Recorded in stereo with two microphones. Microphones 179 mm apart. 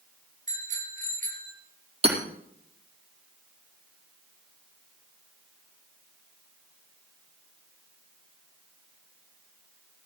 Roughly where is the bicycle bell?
Right.